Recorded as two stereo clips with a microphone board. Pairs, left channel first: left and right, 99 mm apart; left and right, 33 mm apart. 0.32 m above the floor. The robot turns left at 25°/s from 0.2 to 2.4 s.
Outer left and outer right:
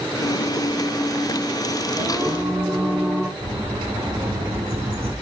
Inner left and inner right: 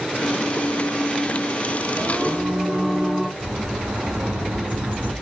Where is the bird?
80° right, 9 m.